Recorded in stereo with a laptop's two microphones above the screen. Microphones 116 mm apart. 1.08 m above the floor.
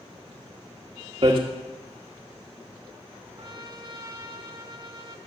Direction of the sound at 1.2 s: 45° right (ahead or behind).